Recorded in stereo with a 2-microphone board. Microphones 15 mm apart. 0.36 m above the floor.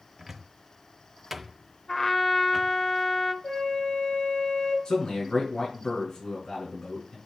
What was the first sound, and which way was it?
A cupboard door, 15° right (ahead or behind).